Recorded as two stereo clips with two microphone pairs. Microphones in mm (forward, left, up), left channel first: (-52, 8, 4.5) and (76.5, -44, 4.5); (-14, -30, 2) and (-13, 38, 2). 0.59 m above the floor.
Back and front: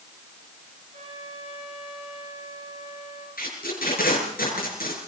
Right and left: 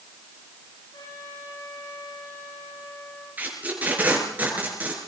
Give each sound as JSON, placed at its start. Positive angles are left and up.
{"t": 0.9, "sound": "a trumpet", "azimuth_deg": -65, "distance_m": 8.5}
{"t": 3.4, "sound": "tape being pulled", "azimuth_deg": 155, "distance_m": 6.5}